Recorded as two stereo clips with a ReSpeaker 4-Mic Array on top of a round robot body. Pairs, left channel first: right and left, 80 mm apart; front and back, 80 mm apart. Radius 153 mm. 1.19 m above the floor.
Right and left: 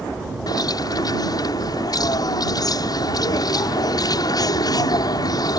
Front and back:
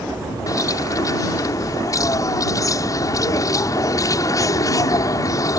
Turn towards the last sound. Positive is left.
turn(degrees=-50)